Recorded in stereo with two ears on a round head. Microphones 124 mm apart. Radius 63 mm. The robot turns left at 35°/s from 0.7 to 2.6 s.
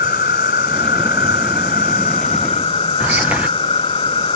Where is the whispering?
10° right (ahead or behind).